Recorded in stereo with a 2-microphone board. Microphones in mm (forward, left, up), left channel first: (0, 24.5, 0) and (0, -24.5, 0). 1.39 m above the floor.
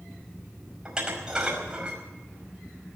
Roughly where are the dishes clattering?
Centre.